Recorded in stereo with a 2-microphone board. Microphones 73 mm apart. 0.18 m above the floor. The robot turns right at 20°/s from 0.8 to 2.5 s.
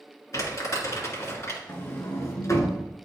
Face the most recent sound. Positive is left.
turn(degrees=45)  # may be behind; listen again after turning